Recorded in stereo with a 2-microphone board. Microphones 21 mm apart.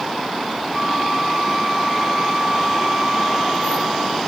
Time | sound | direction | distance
0.7 | a flute | 35° right (ahead or behind) | 3 m